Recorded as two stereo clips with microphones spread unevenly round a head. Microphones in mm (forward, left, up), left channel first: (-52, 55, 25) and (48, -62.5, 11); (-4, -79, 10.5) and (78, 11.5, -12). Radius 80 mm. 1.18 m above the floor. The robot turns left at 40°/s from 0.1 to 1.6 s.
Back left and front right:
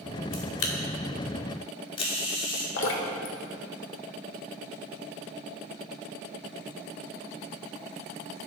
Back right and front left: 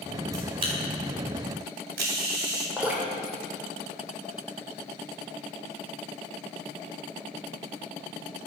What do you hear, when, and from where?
0.3 s a camera shutter: 120° left, 2 m; by 2.7 s 70° left, 2 m
2.8 s dripping: 135° left, 2.0 m